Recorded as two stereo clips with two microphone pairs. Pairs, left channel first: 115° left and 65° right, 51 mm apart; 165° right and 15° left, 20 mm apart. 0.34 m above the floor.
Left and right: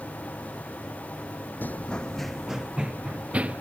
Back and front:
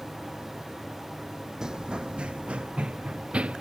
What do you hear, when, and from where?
1.6 s running footsteps: 70° left; by 3.6 s straight ahead